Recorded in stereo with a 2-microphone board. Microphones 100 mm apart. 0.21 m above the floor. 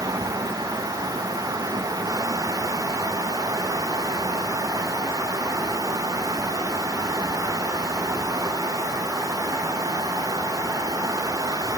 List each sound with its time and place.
Only background noise.